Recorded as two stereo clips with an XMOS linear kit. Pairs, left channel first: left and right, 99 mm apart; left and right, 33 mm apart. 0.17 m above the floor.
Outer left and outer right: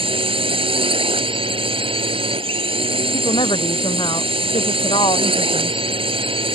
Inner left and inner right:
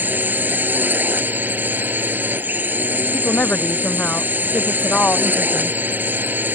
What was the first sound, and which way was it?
A drone, 65° right (ahead or behind).